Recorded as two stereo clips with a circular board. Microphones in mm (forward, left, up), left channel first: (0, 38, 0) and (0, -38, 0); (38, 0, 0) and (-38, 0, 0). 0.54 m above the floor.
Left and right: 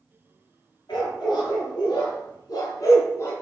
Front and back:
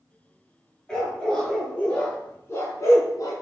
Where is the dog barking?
85° left, 3.5 m; by 3.3 s 35° left, 2 m.